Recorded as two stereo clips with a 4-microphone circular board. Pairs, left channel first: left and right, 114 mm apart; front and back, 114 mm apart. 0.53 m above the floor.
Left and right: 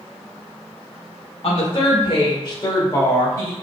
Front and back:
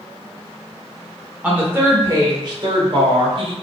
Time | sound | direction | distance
1.4 | a woman speaking | 105° left | 1.1 m